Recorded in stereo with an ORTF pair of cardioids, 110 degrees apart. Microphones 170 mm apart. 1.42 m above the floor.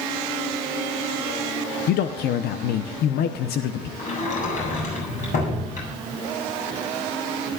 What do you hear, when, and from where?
1.9 s a man speaking: 70° left, 0.9 m
4.0 s a sliding door: 45° left, 8 m